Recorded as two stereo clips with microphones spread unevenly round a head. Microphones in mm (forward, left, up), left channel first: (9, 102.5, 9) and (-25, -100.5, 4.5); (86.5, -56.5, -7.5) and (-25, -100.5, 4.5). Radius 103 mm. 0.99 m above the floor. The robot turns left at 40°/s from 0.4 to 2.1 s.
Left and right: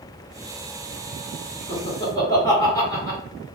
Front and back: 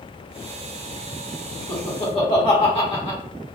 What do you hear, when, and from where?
1.7 s laughter: 25° left, 1.3 m; by 3.2 s 10° left, 1.3 m